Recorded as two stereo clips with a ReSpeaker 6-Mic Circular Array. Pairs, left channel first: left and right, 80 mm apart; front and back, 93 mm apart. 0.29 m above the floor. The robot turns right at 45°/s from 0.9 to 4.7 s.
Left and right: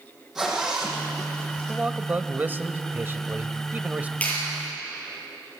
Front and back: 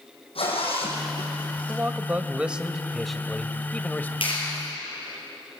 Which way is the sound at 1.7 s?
150° right.